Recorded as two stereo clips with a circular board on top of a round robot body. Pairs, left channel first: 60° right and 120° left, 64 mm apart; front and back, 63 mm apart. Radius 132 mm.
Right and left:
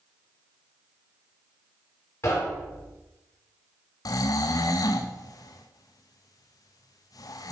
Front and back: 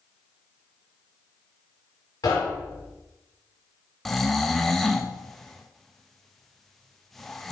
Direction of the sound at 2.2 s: 15° right.